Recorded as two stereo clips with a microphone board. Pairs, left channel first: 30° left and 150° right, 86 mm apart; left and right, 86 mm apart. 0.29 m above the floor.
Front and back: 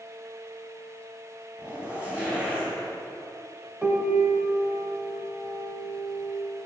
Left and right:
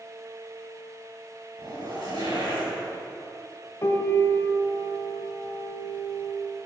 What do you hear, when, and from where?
1.6 s a zipper: 75° right, 2.5 m
3.8 s a piano: 140° left, 0.8 m